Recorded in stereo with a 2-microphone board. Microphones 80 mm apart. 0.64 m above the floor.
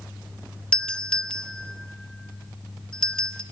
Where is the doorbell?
10° left (ahead or behind), 1.5 m.